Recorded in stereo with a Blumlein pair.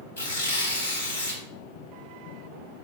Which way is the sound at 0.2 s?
65° left.